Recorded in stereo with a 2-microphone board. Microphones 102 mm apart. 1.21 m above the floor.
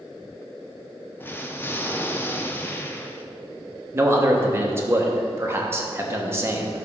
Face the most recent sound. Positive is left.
turn(degrees=-25)  # may be behind; listen again after turning